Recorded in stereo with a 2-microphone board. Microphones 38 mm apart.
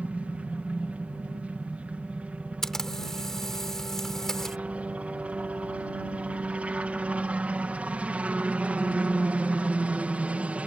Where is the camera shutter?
10° left (ahead or behind).